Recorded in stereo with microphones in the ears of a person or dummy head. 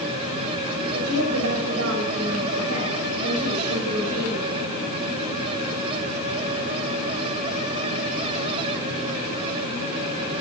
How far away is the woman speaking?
About 5.5 m.